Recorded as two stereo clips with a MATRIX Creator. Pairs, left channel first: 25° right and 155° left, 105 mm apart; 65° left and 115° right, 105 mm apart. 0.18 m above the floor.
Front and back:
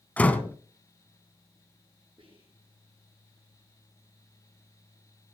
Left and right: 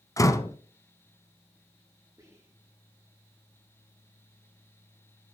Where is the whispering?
170° right, 6 m.